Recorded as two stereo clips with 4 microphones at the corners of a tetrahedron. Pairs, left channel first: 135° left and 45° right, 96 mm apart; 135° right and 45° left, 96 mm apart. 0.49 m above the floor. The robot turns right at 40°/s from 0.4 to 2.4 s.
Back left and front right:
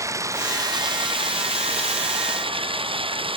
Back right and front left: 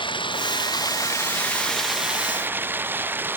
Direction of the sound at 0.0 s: 105° right.